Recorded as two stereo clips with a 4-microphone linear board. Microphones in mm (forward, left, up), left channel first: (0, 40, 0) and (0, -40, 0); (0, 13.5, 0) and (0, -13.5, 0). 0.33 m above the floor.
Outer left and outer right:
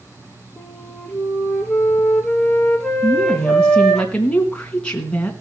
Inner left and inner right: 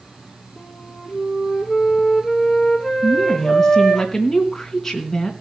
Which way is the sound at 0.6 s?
5° left (ahead or behind).